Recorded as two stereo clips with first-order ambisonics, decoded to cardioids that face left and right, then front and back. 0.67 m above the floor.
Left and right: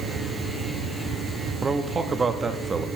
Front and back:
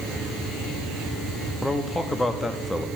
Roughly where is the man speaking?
Ahead right.